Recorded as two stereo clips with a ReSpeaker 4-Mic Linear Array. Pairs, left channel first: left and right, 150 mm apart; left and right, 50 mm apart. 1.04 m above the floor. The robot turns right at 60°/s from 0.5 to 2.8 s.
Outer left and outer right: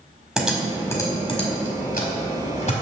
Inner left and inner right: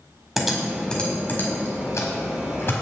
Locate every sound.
0.4 s typing on a keyboard: 5° right (ahead or behind), 1.7 m; by 2.7 s 45° left (ahead or behind), 1.7 m